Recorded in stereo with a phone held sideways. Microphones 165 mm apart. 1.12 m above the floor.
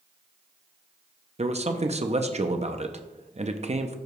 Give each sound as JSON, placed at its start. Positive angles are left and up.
{"t": 1.4, "sound": "a man speaking", "side_deg": -40, "distance_m": 0.6}